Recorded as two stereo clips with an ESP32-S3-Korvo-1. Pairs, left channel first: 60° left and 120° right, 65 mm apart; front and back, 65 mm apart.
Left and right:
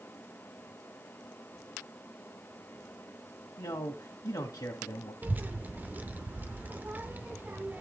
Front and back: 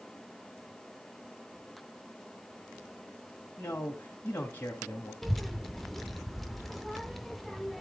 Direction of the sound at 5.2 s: 85° right.